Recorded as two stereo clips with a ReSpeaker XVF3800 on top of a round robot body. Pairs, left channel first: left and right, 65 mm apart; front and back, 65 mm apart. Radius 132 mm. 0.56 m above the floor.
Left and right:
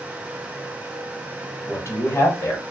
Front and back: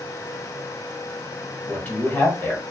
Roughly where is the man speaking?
Ahead left.